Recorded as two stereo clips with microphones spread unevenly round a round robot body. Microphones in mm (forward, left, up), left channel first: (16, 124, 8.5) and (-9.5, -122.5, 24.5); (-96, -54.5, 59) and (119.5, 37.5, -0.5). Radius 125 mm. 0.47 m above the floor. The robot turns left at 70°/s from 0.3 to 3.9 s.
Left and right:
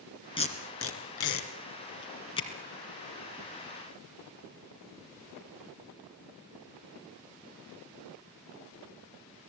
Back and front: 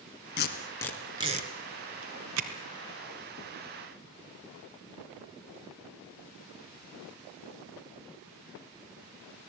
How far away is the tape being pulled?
About 3 m.